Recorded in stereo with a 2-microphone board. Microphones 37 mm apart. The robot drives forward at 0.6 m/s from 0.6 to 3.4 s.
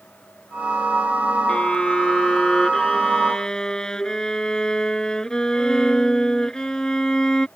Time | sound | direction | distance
1.5 | a violin | 30° left (ahead or behind) | ?